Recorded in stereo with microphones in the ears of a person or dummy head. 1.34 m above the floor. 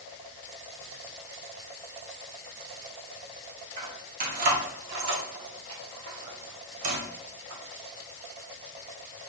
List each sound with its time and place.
3.8 s keys jangling: 40° right (ahead or behind), 2 m; by 7.6 s 85° right, 3 m